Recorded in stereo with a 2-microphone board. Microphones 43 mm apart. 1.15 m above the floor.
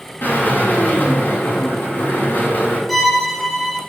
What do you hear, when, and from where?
0.2 s a drill: 55° left (ahead or behind), 5.5 m
2.9 s a violin: centre (ahead or behind), 2 m